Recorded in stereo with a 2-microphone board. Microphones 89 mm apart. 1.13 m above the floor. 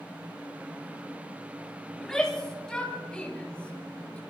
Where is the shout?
5° left (ahead or behind), 9.5 m; by 4.2 s 15° left (ahead or behind), 8 m.